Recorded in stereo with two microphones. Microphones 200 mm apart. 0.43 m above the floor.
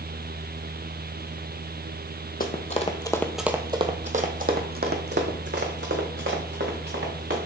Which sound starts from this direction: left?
Running footsteps, at 2.4 s.